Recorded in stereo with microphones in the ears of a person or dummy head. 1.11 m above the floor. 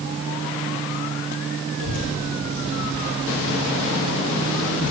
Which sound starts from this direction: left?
A child speaking, at 1.8 s.